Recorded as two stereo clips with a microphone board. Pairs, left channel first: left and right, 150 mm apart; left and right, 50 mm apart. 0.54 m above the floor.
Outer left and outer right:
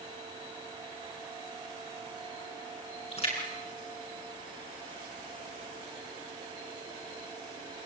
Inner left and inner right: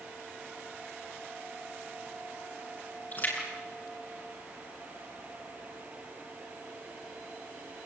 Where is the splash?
45° left (ahead or behind), 7 m.